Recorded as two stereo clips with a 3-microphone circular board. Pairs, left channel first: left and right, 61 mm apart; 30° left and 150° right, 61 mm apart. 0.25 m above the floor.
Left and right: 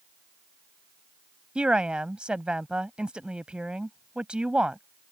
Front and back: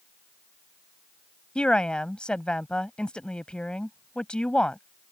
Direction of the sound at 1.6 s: 30° right.